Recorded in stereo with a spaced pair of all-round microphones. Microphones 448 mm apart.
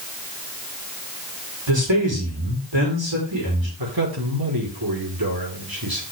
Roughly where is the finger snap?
I don't hear a finger snap.